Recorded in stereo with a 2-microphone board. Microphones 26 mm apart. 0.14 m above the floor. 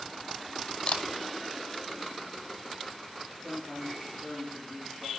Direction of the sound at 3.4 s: 15° left (ahead or behind).